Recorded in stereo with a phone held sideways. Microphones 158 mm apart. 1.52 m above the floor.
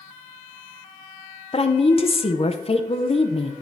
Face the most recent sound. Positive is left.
turn(degrees=40)  # may be behind; listen again after turning